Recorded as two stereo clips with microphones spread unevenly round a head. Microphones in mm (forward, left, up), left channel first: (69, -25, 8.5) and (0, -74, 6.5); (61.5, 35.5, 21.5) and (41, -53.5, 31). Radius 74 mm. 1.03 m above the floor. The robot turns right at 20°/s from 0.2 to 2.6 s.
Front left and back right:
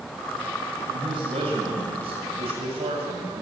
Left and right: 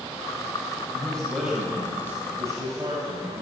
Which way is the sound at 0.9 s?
155° left.